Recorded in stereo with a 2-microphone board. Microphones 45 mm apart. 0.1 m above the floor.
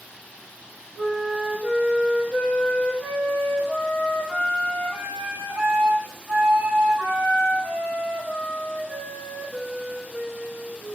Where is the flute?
65° right (ahead or behind), 1.8 m.